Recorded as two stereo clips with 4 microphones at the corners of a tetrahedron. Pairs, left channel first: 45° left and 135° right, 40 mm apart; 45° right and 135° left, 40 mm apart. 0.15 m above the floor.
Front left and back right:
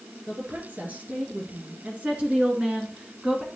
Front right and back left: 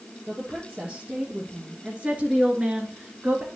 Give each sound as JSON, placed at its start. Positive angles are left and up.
{"t": 0.3, "sound": "a woman speaking", "azimuth_deg": -165, "distance_m": 3.0}